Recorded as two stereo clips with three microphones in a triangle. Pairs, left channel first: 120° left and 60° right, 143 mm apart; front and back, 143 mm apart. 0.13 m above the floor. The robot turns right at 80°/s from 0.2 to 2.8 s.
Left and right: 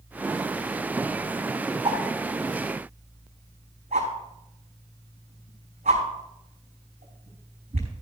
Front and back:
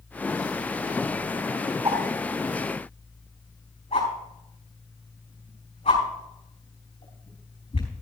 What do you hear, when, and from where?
1.9 s a whoosh: 115° right, 5 m; by 8.0 s 40° right, 5 m